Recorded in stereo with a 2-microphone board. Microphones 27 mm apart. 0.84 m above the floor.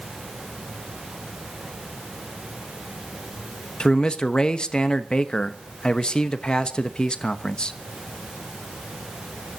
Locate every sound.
3.8 s a man speaking: 35° left (ahead or behind), 1.0 m